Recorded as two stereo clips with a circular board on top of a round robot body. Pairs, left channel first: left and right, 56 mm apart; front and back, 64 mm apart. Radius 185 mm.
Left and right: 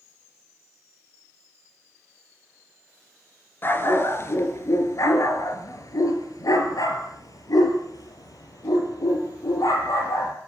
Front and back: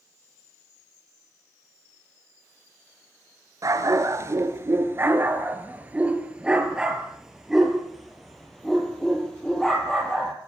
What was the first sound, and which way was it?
A dog barking, 145° left.